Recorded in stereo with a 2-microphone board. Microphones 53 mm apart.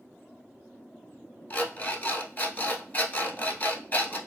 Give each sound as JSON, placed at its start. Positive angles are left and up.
{"t": 1.5, "sound": "an alarm clock", "side_deg": 35, "distance_m": 0.9}